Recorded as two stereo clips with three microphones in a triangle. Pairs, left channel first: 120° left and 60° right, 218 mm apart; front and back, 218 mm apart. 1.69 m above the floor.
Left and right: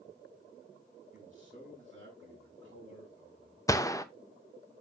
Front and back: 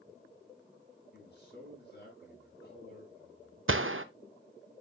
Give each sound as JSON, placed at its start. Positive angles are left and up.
{"t": 1.1, "sound": "a man speaking", "azimuth_deg": -35, "distance_m": 5.5}
{"t": 3.7, "sound": "a gunshot", "azimuth_deg": -165, "distance_m": 0.6}